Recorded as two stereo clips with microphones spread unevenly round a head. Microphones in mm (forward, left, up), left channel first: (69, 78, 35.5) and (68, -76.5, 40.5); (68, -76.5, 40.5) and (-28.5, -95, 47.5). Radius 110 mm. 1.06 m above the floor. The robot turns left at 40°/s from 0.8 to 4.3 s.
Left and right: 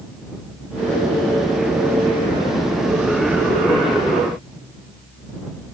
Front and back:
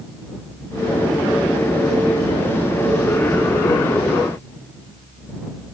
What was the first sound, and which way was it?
Only background noise.